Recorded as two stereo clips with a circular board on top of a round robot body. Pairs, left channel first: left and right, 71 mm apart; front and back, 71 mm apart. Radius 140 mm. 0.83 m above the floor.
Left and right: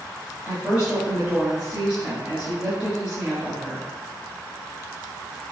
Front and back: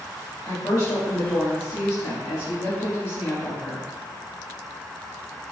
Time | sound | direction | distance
0.5 | a woman speaking | 25° right | 1.8 m